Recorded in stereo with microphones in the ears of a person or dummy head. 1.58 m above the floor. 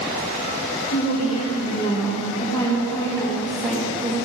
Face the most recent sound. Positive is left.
turn(degrees=-10)  # may be behind; listen again after turning